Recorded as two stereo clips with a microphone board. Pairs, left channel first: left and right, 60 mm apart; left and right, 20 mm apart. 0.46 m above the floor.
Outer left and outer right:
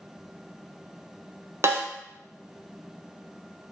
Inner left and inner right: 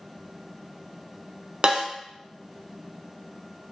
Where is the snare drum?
50° right (ahead or behind), 0.6 m.